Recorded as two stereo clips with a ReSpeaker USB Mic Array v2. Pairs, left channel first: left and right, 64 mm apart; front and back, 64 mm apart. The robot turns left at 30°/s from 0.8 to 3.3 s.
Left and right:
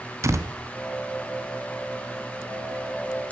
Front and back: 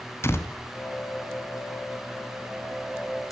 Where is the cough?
No cough in this recording.